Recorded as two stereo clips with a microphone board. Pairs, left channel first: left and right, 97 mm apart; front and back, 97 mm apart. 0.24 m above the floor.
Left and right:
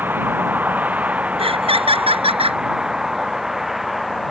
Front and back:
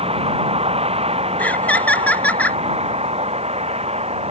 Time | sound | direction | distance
0.0 | a vehicle | 160° right | ?
1.4 | laughter | 75° right | ?